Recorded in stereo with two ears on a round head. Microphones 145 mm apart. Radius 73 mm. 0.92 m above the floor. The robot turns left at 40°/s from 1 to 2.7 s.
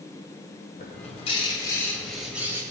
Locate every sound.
0.8 s a bird: 45° left, 2 m; by 2.6 s 20° right, 2 m